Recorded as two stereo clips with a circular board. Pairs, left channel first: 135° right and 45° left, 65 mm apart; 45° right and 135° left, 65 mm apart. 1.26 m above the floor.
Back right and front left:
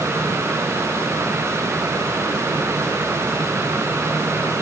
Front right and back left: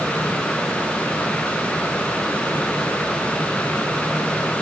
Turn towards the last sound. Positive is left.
No sound to turn to.